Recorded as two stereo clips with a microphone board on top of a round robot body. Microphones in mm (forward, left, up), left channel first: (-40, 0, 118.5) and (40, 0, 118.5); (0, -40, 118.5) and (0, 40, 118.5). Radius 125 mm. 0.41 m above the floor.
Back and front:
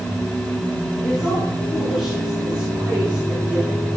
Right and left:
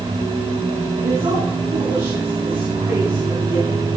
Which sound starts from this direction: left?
A woman speaking, at 1.0 s.